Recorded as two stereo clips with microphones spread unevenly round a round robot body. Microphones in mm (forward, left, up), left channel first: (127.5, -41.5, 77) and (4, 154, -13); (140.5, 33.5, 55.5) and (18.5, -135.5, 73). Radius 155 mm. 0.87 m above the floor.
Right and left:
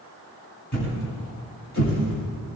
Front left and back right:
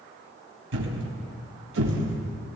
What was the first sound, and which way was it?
A thud, 115° right.